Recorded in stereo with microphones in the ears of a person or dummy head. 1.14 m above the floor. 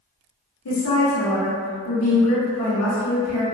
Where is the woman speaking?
80° left, 1.1 m.